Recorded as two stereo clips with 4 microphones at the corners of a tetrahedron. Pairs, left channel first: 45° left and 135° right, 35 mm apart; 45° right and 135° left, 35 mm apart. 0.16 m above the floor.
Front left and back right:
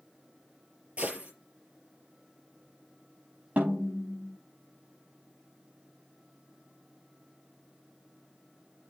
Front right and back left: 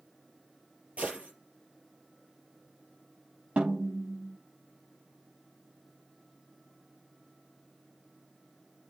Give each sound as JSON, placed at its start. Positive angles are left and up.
{"t": 1.0, "sound": "a gunshot", "azimuth_deg": 180, "distance_m": 4.5}
{"t": 3.6, "sound": "a snare drum", "azimuth_deg": -175, "distance_m": 5.0}